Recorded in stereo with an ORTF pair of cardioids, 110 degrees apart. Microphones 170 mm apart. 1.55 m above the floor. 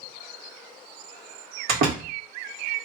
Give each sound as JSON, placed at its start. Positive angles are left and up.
{"t": 1.7, "sound": "a door slam", "azimuth_deg": -65, "distance_m": 1.7}